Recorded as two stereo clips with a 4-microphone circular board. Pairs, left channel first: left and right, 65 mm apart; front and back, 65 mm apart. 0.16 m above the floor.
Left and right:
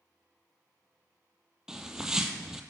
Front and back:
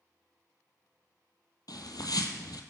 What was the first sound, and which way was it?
A bird, 10° right.